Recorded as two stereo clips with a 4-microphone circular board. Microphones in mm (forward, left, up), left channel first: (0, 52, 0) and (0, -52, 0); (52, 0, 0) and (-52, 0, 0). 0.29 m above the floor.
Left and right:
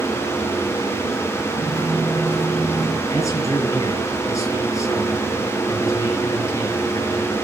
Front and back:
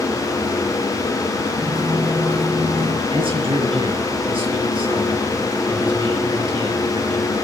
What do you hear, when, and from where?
1.6 s footsteps: 155° left, 6 m; by 3.0 s 165° left, 5 m
3.1 s a man speaking: 150° left, 4 m